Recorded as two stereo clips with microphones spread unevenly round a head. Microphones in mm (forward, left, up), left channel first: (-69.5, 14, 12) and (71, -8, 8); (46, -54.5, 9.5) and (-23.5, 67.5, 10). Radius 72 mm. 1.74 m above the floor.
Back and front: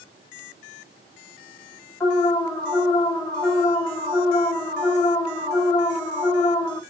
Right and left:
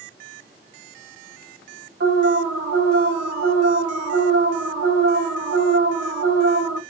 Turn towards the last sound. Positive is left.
turn(degrees=100)